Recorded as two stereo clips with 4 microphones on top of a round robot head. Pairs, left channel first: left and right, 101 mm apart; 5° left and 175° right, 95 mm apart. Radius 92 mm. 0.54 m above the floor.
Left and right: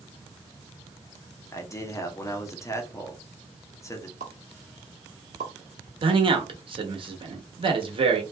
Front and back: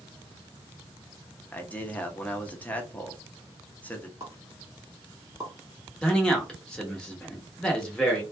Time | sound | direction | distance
1.5 | a man speaking | 65° left | 0.9 m
4.2 | a pop | 110° right | 1.0 m
6.0 | a man speaking | 75° right | 1.2 m